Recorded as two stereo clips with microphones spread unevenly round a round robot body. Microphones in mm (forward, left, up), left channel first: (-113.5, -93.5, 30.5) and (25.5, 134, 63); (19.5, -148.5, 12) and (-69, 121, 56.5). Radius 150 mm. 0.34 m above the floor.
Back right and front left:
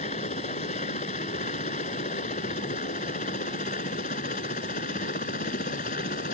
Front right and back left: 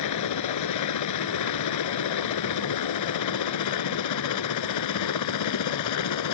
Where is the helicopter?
55° right; by 6.3 s 60° right.